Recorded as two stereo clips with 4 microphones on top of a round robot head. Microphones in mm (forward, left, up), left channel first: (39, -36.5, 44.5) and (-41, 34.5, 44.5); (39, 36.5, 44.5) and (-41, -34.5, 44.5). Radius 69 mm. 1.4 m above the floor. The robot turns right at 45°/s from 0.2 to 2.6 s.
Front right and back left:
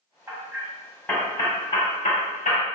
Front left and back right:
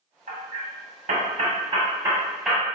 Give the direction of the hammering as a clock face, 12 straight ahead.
5 o'clock.